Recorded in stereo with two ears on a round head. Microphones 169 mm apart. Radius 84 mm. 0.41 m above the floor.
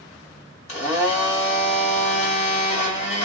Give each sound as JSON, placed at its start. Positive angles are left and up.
{"t": 0.7, "sound": "a blender", "side_deg": 40, "distance_m": 1.8}